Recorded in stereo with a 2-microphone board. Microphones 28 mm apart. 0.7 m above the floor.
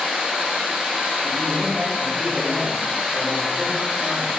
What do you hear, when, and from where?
0.0 s running water: 60° right (ahead or behind), 1.5 m
1.2 s a man speaking: 35° right (ahead or behind), 1.1 m